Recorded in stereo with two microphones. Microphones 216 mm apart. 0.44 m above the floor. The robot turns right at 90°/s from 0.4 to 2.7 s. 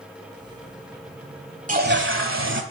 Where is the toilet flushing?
145° right, 1.1 m; by 2.6 s 60° right, 1.1 m.